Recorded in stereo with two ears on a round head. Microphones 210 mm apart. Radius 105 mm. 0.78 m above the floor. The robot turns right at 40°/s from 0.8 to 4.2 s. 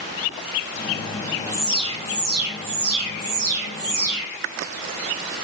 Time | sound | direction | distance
1.5 | an alarm | 170° right | 3.5 m